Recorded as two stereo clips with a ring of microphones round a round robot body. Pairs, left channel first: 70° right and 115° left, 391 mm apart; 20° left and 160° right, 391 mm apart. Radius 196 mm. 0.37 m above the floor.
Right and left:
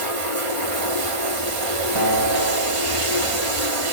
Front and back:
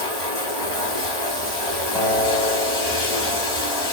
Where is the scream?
I don't hear a scream.